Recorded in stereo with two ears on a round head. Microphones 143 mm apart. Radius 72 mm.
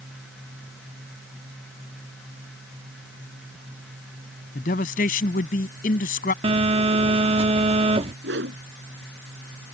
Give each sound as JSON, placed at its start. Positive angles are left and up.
{"t": 4.5, "sound": "a man speaking", "side_deg": 55}
{"t": 6.4, "sound": "a phone buzzing", "side_deg": -35}
{"t": 8.2, "sound": "a whoosh", "side_deg": -75}